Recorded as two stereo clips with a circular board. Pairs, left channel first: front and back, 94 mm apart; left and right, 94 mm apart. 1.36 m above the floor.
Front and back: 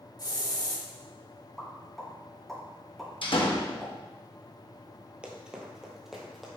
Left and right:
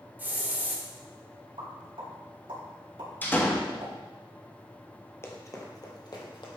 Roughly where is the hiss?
Ahead right.